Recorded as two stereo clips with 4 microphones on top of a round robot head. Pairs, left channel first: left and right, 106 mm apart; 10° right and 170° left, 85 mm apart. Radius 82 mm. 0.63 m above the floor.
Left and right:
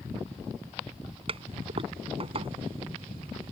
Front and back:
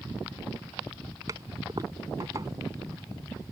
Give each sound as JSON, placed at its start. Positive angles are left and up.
{"t": 1.3, "sound": "a toilet flushing", "azimuth_deg": -125}